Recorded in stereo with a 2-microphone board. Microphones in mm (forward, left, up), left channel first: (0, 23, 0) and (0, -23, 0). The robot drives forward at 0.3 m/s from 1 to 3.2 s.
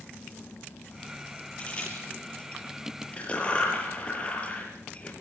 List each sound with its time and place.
1.6 s a crack: 20° left (ahead or behind), 6 m; by 5.1 s 25° left (ahead or behind), 6 m